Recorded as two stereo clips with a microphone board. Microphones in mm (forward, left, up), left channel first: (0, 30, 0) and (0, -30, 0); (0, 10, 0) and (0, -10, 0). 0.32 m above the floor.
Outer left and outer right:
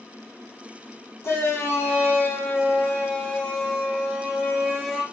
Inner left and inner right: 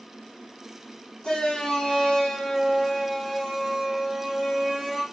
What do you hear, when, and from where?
1.2 s a shout: 50° left (ahead or behind), 1.7 m; by 5.0 s centre (ahead or behind), 2.5 m